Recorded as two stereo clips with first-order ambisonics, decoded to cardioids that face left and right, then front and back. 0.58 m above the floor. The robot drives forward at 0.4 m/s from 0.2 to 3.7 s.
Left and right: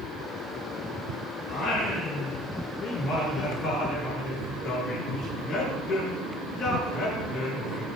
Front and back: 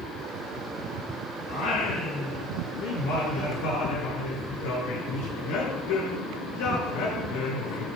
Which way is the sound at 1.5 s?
20° left.